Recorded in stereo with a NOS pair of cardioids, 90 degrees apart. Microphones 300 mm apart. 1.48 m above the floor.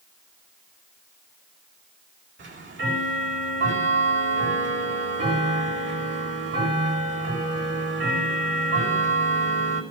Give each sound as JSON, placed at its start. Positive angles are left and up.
{"t": 2.4, "sound": "ticking", "azimuth_deg": -40, "distance_m": 6.0}